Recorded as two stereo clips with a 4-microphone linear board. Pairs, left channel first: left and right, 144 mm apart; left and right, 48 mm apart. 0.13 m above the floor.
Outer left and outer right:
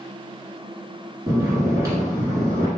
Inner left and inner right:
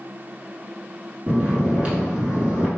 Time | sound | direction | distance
1.3 | snoring | 25° right (ahead or behind) | 1.3 m